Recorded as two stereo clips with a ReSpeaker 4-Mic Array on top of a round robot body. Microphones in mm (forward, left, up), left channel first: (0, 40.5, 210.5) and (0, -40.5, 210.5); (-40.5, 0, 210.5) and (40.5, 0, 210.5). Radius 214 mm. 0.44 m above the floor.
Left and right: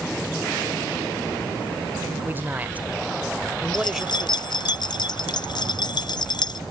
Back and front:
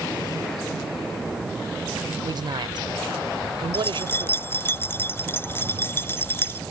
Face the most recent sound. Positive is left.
turn(degrees=115)